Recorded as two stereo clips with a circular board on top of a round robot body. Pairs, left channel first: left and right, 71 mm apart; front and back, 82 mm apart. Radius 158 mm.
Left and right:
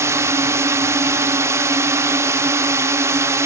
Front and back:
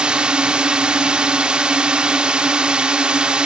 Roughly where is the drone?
Right.